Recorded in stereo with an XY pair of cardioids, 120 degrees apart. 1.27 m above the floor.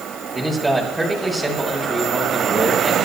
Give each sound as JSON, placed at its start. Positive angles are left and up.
{"t": 0.3, "sound": "a man speaking", "azimuth_deg": -5, "distance_m": 7.0}